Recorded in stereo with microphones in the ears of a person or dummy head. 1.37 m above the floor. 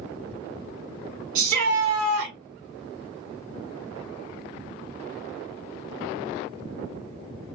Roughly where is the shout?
Right.